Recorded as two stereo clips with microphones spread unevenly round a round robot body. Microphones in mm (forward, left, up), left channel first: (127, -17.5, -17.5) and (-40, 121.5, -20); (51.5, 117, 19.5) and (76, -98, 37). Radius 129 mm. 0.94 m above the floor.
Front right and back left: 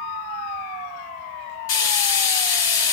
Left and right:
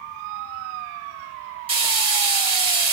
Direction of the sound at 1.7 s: 20° right.